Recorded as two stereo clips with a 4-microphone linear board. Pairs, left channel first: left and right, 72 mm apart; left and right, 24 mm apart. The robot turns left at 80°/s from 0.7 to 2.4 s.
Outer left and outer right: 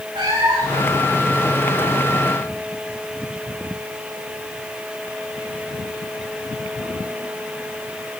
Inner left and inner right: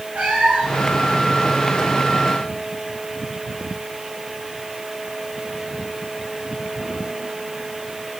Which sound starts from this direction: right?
A cat meowing, at 0.1 s.